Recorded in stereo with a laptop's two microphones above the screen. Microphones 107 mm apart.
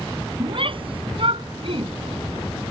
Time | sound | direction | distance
0.4 | a shout | 55° right (ahead or behind) | ?